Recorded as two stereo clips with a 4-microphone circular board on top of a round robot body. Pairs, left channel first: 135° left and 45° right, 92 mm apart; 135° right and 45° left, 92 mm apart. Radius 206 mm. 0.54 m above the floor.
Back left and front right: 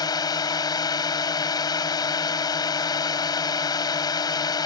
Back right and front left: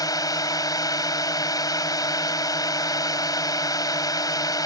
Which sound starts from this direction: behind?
A drone, at 0.0 s.